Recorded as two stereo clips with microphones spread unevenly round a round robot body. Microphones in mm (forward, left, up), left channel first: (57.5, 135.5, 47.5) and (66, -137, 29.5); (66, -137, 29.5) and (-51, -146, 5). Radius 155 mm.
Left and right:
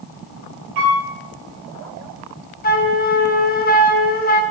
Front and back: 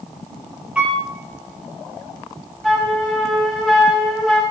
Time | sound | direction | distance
0.8 | a piano | 95° right | 5 m
2.6 | a flute | 115° left | 0.9 m